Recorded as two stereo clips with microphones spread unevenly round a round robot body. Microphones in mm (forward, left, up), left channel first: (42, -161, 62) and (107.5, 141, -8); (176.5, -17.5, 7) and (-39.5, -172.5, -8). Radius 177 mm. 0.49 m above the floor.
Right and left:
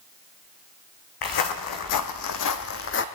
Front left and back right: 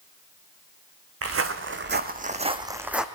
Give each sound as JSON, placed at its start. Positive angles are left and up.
{"t": 1.2, "sound": "footsteps", "azimuth_deg": -110, "distance_m": 1.9}